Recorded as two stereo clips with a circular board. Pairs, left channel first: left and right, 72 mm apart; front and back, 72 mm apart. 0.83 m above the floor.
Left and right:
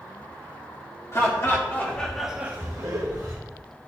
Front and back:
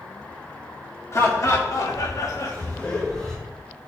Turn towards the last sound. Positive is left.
turn(degrees=-80)